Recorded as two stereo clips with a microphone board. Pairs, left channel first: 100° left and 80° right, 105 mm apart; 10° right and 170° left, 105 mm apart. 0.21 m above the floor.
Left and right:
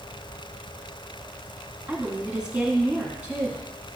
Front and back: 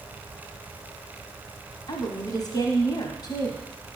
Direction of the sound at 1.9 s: 5° right.